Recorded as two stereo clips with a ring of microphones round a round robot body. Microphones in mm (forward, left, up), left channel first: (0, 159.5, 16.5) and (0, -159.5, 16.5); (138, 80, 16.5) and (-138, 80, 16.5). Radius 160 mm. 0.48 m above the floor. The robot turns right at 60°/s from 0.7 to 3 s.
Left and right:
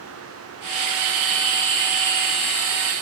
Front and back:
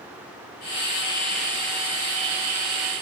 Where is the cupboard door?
No cupboard door in this recording.